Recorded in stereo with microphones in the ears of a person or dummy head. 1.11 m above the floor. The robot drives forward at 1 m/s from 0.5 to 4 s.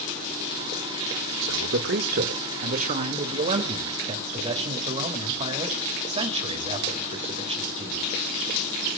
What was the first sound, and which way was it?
A man speaking, 75° right (ahead or behind).